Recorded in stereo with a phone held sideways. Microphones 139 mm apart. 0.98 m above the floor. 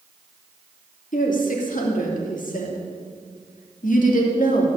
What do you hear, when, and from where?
1.1 s a woman speaking: 70° left (ahead or behind), 2.5 m